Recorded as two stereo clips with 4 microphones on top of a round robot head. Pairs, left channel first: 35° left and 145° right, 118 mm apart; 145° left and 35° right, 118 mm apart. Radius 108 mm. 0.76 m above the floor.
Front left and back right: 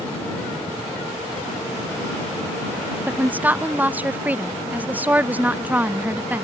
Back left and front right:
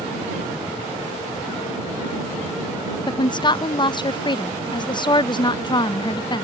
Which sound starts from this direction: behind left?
A woman speaking, at 3.1 s.